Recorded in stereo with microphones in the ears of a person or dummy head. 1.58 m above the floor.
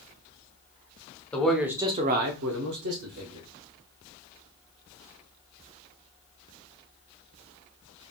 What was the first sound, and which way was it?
A man speaking, 10° left (ahead or behind).